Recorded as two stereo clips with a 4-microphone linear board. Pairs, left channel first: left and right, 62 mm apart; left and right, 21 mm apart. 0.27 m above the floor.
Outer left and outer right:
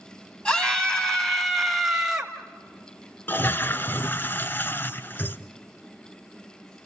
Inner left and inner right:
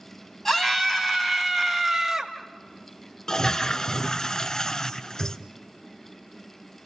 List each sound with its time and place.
0.5 s a scream: 15° left (ahead or behind), 2.5 m; by 2.3 s 10° right (ahead or behind), 1.7 m
3.3 s a toilet flushing: 35° left (ahead or behind), 0.6 m